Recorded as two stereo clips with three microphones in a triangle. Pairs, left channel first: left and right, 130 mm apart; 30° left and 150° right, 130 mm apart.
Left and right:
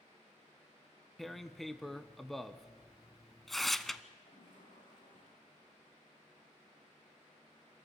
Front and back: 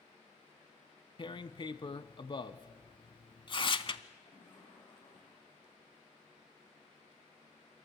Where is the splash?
80° left, 8 m.